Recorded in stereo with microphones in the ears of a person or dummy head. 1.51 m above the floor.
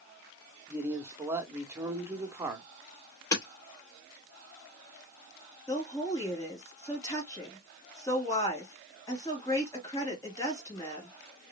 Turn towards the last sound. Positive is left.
turn(degrees=20)  # may be behind; listen again after turning